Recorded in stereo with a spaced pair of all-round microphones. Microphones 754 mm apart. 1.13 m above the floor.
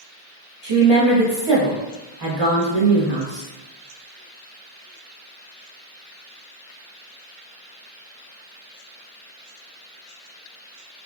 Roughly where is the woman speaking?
Right.